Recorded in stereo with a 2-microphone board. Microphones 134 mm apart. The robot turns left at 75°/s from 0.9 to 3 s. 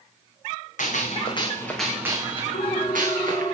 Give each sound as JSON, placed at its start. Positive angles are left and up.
{"t": 0.8, "sound": "a gunshot", "azimuth_deg": 70, "distance_m": 5.0}
{"t": 2.5, "sound": "a ringtone", "azimuth_deg": 90, "distance_m": 2.5}